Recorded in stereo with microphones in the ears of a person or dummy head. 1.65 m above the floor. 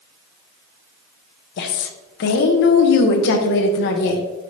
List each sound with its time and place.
1.6 s a woman speaking: 55° left (ahead or behind), 0.6 m